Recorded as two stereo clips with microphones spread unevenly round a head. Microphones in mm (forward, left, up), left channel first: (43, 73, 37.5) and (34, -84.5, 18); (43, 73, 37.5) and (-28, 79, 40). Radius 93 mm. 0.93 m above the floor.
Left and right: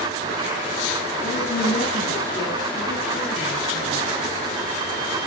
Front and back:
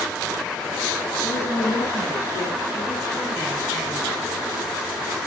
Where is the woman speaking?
40° left, 8 m; by 4.2 s 30° left, 10.5 m.